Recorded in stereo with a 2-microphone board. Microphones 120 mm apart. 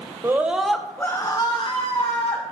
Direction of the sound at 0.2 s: 20° right (ahead or behind).